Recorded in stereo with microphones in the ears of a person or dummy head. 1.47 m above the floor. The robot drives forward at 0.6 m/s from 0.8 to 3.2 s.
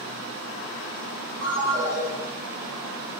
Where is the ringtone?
70° right (ahead or behind), 1.5 m; by 2.0 s 65° right (ahead or behind), 1.6 m.